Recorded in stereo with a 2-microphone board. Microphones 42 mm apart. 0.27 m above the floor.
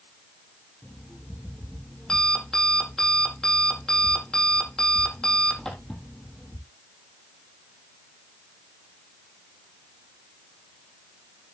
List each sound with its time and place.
0.8 s an alarm clock: 15° left (ahead or behind), 4 m